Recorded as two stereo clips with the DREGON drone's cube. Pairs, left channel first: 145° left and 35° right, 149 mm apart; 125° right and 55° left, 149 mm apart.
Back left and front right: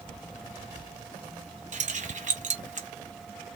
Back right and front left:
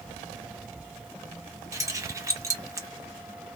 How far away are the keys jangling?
About 0.6 m.